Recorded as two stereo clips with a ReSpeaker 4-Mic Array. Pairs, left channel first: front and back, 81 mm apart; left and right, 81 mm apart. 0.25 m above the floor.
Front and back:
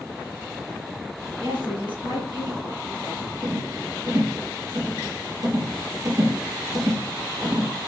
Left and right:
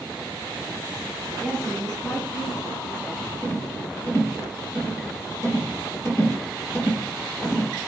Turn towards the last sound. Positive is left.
turn(degrees=145)